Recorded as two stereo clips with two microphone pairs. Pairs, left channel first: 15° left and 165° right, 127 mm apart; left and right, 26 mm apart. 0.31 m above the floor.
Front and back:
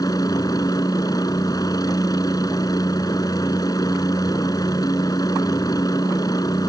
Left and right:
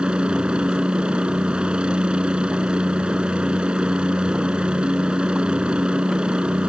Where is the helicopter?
45° right.